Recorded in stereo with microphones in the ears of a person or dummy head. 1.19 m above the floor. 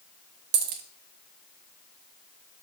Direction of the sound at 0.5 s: 40° right (ahead or behind).